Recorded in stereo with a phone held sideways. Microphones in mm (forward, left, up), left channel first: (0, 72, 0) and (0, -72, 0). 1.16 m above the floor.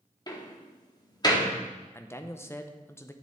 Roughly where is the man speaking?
Centre.